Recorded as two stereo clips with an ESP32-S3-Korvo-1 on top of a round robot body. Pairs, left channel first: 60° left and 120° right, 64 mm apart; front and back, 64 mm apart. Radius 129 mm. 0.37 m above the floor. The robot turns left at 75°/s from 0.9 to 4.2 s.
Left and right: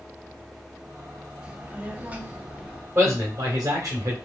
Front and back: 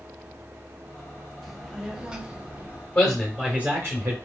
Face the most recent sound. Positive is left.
turn(degrees=-160)